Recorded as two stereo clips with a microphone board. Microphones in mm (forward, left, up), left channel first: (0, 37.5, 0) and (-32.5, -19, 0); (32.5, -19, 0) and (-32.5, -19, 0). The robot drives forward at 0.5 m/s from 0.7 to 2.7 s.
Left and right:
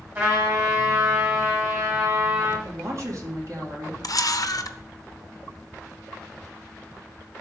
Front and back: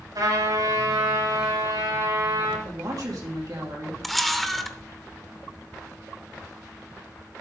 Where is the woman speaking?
160° right, 2.5 m.